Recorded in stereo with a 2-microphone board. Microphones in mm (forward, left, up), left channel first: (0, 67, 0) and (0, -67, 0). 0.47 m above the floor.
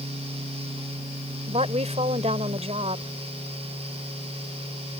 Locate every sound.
1.5 s a woman speaking: 55° right (ahead or behind)